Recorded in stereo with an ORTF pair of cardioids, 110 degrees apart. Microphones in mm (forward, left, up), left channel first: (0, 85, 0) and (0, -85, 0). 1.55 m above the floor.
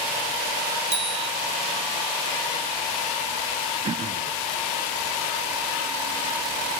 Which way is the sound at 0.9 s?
35° right.